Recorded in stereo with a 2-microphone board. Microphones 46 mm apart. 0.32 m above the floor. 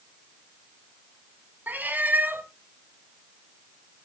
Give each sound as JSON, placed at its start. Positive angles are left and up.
{"t": 1.7, "sound": "a cat meowing", "side_deg": -40, "distance_m": 1.4}